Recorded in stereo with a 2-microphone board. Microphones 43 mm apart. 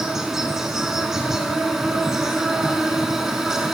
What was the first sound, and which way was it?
An insect, 10° right (ahead or behind).